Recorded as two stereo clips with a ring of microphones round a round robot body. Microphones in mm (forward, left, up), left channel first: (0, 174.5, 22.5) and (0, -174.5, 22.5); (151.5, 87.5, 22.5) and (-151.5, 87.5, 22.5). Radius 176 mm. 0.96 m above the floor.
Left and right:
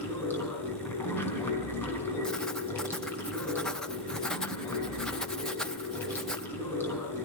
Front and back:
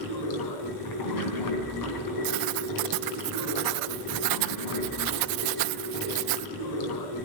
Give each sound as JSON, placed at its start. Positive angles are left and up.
{"t": 0.0, "sound": "running water", "azimuth_deg": 5, "distance_m": 3.5}
{"t": 2.2, "sound": "writing", "azimuth_deg": 180, "distance_m": 0.5}